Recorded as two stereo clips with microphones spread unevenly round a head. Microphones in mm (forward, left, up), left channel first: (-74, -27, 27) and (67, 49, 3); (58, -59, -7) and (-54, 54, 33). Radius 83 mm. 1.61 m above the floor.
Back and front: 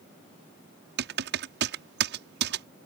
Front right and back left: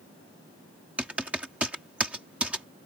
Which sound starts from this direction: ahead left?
Typing on a keyboard, at 1.0 s.